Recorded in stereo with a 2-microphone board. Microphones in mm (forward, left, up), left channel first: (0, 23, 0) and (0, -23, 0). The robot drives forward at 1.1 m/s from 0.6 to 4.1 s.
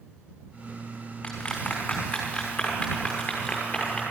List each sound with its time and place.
1.2 s a clap: 30° left (ahead or behind), 5 m; by 4.0 s 20° left (ahead or behind), 8 m